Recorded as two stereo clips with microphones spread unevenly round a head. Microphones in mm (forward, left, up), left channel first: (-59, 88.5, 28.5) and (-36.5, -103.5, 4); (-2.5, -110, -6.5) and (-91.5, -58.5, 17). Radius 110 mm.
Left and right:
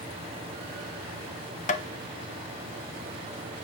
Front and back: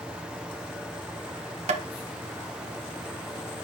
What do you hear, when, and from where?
1.7 s tapping: 150° left, 0.9 m